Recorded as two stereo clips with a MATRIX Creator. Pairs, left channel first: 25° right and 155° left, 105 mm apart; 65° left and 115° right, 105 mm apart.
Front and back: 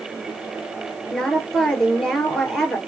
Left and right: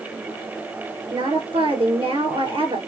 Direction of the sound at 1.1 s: 110° right.